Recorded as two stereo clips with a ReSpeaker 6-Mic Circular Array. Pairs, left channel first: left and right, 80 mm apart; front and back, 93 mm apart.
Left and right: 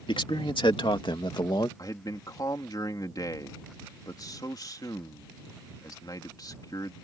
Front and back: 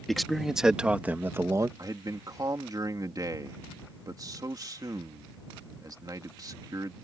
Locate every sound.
0.1 s a man speaking: 90° left; by 1.7 s 125° left
1.8 s a man speaking: 130° left